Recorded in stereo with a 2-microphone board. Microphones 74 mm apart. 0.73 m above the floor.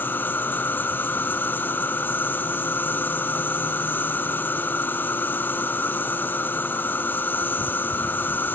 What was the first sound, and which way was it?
An insect, 25° left (ahead or behind).